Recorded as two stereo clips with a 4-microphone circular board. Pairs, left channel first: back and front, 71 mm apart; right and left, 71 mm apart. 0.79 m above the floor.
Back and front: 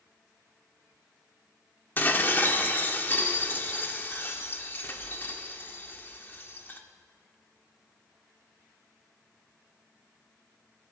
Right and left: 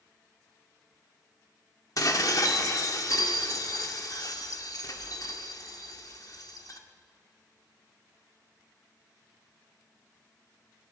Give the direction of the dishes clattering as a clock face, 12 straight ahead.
4 o'clock.